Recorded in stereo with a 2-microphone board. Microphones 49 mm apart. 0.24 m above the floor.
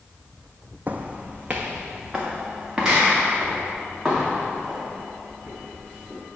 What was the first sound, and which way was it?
Footsteps, 40° right (ahead or behind).